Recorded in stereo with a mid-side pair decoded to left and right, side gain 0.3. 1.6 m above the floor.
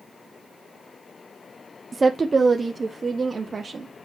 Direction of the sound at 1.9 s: 30° right.